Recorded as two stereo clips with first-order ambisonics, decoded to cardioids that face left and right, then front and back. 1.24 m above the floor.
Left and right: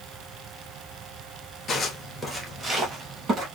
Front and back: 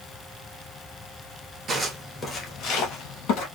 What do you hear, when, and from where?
1.7 s footsteps: 145° left, 1.3 m; by 3.5 s 25° right, 2.5 m